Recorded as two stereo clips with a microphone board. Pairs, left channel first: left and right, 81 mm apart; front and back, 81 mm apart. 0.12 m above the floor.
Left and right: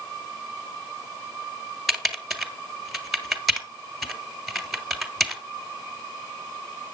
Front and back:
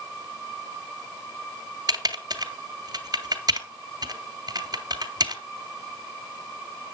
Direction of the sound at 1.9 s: Straight behind.